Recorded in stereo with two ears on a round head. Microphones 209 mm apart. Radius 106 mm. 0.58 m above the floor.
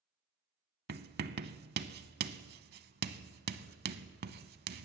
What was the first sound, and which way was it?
Writing, 40° right (ahead or behind).